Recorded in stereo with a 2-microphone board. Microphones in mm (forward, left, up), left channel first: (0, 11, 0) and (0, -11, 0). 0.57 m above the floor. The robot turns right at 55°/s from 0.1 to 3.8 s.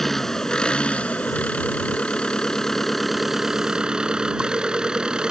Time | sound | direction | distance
0.0 | an engine running | 15° left | ?